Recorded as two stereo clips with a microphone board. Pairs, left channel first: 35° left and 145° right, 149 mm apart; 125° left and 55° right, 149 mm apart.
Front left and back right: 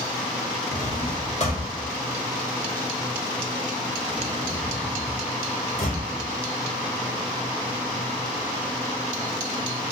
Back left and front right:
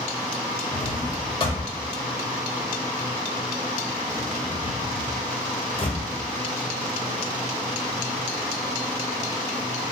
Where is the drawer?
75° left, 0.9 m.